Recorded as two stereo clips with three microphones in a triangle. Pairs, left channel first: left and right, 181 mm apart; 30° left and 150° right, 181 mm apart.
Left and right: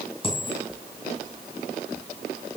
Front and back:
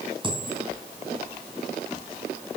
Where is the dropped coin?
150° left, 2 m.